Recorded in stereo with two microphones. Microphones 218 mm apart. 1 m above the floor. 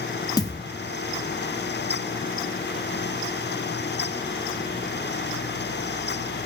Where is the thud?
15° left (ahead or behind), 0.5 m.